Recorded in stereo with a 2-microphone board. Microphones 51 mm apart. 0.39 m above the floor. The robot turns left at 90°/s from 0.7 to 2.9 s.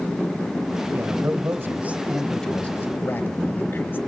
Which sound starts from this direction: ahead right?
A man speaking, at 0.9 s.